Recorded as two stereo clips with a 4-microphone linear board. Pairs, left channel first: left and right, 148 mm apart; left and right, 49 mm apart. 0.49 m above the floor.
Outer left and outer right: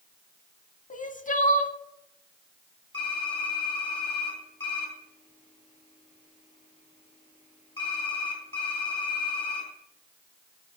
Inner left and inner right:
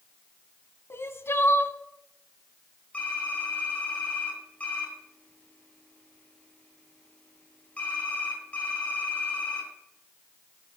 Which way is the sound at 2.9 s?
35° left (ahead or behind).